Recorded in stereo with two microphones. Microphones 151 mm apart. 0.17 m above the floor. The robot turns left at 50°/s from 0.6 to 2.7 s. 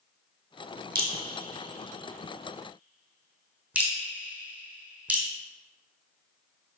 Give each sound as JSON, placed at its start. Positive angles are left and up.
{"t": 0.9, "sound": "dripping", "side_deg": -80, "distance_m": 1.7}